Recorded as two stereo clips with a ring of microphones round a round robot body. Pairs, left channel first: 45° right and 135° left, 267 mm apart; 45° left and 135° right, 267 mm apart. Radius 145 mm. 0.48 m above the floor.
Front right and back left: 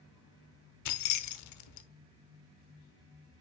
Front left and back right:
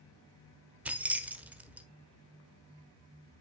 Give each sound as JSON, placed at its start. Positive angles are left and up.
{"t": 0.8, "sound": "keys jangling", "azimuth_deg": -50, "distance_m": 1.0}